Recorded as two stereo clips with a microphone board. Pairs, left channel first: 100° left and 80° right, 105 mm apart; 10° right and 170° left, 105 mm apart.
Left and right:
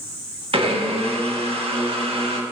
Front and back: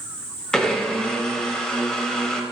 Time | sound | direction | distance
0.5 | a blender | 95° right | 0.6 m